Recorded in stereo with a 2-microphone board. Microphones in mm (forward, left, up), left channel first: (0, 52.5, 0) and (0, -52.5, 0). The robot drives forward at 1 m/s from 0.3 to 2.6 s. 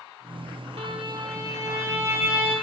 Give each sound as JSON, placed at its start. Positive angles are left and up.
{"t": 0.8, "sound": "a violin", "side_deg": -65, "distance_m": 0.8}